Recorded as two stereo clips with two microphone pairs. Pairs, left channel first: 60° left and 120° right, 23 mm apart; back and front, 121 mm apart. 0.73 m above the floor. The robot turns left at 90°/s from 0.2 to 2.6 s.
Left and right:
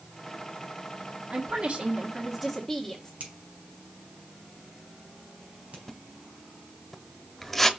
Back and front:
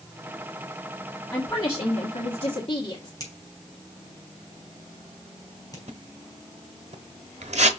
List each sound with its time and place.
1.3 s a woman speaking: 95° right, 1.5 m; by 3.1 s 150° left, 1.5 m
3.2 s a finger snap: 125° right, 4.5 m
5.9 s a splash: 25° right, 1.0 m